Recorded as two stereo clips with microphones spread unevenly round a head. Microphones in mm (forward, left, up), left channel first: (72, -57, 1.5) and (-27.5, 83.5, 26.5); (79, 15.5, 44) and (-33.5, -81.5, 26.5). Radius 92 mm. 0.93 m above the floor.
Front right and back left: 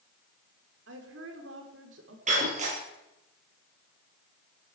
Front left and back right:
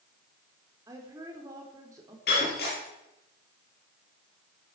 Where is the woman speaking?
150° left, 3.5 m.